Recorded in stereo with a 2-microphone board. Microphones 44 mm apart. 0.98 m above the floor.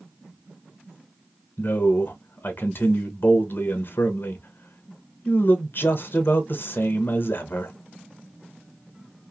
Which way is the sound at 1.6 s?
55° left (ahead or behind).